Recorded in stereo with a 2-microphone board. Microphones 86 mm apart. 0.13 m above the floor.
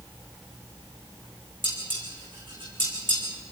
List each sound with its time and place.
1.6 s dishes clattering: 55° right (ahead or behind), 7 m